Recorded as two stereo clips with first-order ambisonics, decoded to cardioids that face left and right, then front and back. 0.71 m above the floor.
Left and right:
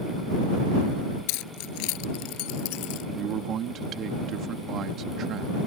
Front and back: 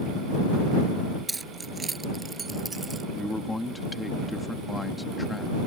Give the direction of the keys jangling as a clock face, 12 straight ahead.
9 o'clock.